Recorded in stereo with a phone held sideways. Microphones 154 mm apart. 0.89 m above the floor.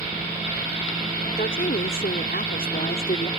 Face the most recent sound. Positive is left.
turn(degrees=70)  # may be behind; listen again after turning